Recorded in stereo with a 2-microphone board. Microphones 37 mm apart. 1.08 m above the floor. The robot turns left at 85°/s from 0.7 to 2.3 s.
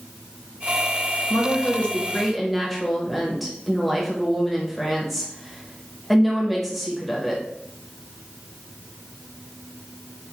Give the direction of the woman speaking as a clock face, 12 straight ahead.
9 o'clock.